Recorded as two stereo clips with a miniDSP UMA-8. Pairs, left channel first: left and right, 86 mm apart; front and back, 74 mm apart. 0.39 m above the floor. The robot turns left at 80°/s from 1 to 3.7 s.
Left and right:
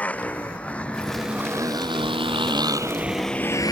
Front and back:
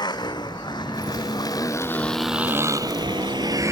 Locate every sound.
0.0 s a motorcycle: 15° left; by 3.7 s 130° left